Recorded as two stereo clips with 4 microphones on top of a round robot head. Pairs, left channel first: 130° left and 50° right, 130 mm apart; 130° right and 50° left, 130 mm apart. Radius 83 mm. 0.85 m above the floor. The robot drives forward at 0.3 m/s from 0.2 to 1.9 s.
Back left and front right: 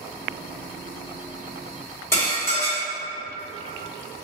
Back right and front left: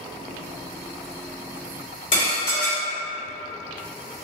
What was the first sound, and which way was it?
Dishes clattering, 160° right.